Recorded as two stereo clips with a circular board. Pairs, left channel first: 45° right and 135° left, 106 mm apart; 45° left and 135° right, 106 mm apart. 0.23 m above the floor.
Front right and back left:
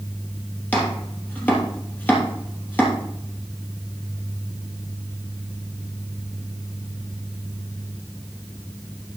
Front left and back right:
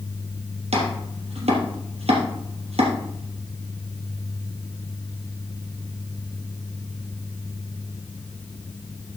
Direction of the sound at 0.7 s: 120° right.